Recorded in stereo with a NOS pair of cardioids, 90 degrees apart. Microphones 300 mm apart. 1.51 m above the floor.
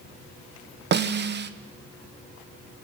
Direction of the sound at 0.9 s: 40° right.